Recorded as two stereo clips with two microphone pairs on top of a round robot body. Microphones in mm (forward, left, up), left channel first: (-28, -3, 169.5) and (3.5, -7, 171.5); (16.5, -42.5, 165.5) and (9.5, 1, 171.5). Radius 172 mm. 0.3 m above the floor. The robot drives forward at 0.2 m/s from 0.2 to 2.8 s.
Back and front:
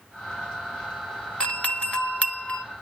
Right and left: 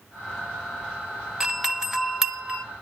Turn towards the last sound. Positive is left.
turn(degrees=-175)